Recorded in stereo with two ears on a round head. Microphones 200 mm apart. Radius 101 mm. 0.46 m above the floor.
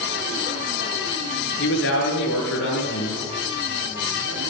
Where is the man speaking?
50° left (ahead or behind), 8.5 m.